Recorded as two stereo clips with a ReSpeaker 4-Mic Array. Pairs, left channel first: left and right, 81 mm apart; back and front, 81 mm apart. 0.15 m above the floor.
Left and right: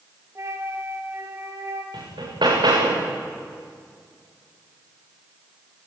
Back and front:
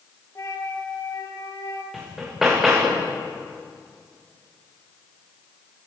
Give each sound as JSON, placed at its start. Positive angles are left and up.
{"t": 0.3, "sound": "a flute", "azimuth_deg": -135, "distance_m": 3.0}
{"t": 1.9, "sound": "hammering", "azimuth_deg": -85, "distance_m": 6.0}